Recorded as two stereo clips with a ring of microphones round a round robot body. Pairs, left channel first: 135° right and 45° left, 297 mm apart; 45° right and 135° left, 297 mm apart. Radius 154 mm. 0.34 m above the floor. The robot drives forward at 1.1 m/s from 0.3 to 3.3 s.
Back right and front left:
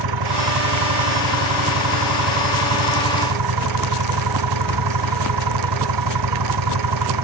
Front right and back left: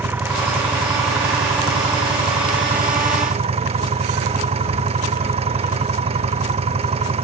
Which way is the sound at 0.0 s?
50° left.